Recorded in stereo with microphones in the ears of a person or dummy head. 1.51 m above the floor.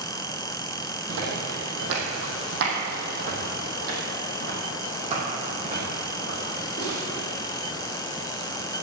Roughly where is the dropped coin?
I don't hear a dropped coin.